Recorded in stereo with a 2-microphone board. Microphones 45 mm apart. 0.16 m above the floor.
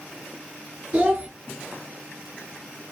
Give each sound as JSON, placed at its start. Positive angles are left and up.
{"t": 0.9, "sound": "a child speaking", "side_deg": -35, "distance_m": 1.4}